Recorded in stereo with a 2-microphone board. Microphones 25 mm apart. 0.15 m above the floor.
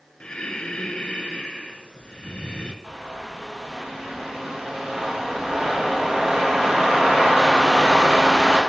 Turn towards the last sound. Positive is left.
turn(degrees=-15)  # may be behind; listen again after turning